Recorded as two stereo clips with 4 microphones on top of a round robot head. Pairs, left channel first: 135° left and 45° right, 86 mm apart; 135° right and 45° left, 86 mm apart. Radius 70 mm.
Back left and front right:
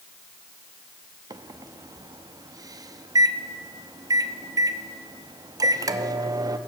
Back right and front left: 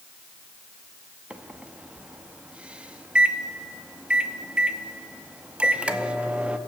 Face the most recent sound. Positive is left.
turn(degrees=-30)